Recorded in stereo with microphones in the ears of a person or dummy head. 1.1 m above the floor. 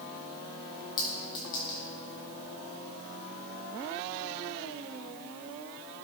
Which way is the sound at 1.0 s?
25° left (ahead or behind).